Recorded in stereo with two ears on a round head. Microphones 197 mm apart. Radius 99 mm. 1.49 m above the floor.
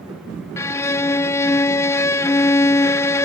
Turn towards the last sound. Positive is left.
turn(degrees=15)  # may be behind; listen again after turning